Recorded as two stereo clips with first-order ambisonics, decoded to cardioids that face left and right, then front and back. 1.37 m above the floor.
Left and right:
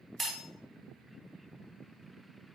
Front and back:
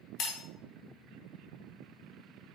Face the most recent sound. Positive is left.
turn(degrees=0)